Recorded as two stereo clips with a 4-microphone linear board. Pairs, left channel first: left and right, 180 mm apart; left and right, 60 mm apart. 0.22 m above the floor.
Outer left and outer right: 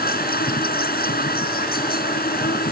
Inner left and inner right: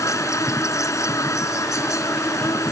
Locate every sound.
0.0 s an insect: 60° left (ahead or behind)